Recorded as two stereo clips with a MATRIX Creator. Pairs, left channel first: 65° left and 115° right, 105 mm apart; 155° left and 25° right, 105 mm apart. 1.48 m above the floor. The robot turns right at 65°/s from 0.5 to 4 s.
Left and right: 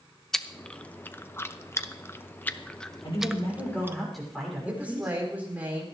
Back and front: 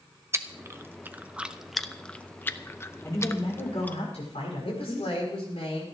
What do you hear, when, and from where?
0.3 s chewing: 15° right, 0.6 m; by 4.0 s 145° right, 0.6 m
3.0 s a man speaking: 95° left, 6 m; by 5.1 s 155° left, 6 m
4.7 s a woman speaking: 175° left, 4.5 m